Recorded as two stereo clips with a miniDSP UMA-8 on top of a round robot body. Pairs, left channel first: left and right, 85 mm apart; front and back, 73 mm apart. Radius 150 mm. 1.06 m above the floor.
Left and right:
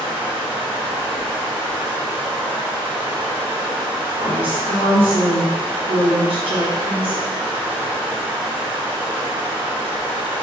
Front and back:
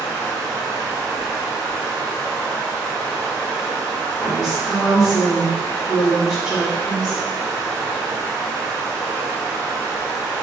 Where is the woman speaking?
95° right, 1.0 m.